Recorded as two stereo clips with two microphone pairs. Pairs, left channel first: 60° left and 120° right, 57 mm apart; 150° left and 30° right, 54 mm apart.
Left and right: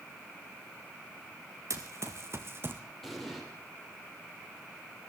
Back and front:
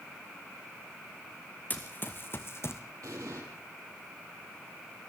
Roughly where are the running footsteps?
Behind right.